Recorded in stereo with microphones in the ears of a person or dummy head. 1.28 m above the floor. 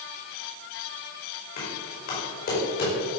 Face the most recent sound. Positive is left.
turn(degrees=50)  # may be behind; listen again after turning